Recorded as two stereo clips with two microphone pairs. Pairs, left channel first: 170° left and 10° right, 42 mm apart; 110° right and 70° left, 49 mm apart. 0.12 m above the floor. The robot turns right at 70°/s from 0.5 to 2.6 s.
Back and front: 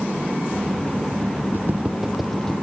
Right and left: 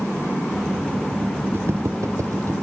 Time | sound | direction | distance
1.5 | footsteps | 25° left | 0.9 m